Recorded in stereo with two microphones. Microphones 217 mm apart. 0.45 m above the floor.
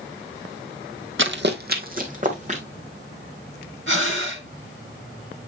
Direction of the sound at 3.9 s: 60° right (ahead or behind).